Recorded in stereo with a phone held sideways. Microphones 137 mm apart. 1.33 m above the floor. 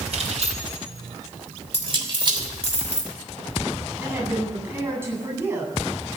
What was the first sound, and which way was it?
Keys jangling, 60° right (ahead or behind).